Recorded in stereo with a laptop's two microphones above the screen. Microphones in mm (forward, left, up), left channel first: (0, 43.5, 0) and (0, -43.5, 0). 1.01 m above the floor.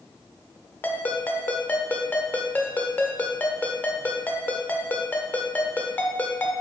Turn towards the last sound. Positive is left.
turn(degrees=20)  # may be behind; listen again after turning